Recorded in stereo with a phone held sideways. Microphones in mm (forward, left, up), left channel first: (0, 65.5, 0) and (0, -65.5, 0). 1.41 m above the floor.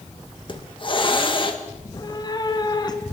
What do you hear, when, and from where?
0.5 s a hiss: 40° left (ahead or behind), 1.8 m
1.8 s a cat meowing: 30° left (ahead or behind), 1.8 m